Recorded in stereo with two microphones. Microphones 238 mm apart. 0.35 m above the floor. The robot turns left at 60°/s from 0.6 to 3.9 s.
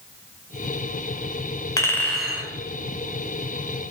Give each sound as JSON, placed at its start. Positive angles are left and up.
{"t": 1.8, "sound": "a clink", "azimuth_deg": 25, "distance_m": 0.5}